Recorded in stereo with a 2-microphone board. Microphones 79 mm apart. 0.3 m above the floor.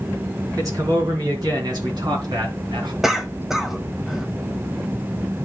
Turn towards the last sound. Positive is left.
turn(degrees=-5)  # may be behind; listen again after turning